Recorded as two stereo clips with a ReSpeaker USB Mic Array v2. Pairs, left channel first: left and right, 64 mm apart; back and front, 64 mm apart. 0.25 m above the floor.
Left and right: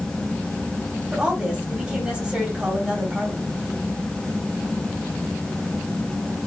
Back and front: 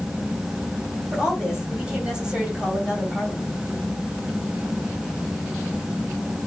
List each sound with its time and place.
1.1 s a woman speaking: 45° right, 1.6 m